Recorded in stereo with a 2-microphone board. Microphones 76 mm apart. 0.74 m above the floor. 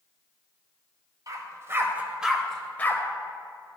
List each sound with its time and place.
1.3 s a dog barking: 50° right (ahead or behind), 1.0 m; by 3.0 s 30° left (ahead or behind), 0.8 m